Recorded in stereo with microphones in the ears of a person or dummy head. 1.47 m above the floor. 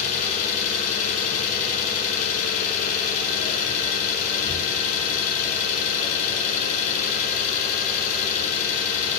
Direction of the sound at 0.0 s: 40° left (ahead or behind).